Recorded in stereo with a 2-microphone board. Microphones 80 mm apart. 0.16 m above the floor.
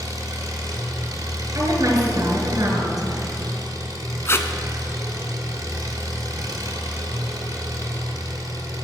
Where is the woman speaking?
40° right (ahead or behind), 1.9 m.